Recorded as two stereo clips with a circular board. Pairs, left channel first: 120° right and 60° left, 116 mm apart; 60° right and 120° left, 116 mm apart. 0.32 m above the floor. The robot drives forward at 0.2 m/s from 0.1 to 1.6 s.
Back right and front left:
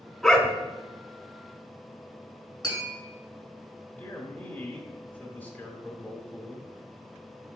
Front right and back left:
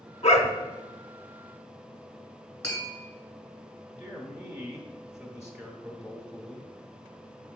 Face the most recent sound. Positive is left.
turn(degrees=-170)